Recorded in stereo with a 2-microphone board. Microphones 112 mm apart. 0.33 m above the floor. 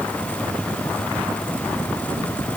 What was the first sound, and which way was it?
Only background noise.